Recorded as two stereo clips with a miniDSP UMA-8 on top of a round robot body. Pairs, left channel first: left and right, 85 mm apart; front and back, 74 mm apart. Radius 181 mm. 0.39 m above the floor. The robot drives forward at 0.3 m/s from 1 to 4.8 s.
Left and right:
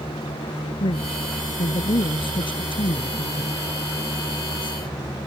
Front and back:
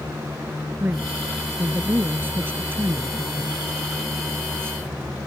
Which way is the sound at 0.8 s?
110° left.